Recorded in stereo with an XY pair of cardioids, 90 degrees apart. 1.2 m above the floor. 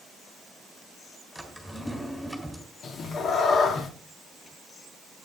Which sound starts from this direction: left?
A cat meowing, at 2.8 s.